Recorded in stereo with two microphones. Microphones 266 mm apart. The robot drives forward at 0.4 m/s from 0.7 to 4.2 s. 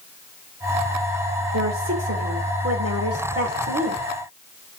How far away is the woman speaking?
About 2.5 m.